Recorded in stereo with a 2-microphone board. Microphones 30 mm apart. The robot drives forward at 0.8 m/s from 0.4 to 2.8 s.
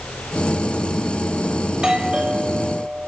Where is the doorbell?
25° right (ahead or behind), 4.5 m; by 3.1 s 30° right (ahead or behind), 3.5 m.